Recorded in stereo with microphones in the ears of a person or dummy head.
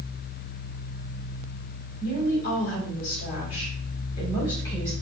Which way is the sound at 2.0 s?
60° left (ahead or behind).